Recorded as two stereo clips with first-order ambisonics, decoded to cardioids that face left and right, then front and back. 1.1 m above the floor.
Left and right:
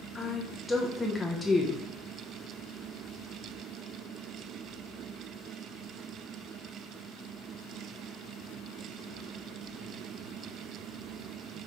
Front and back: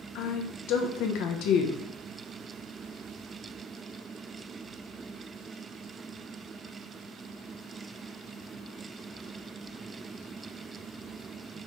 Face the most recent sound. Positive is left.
turn(degrees=5)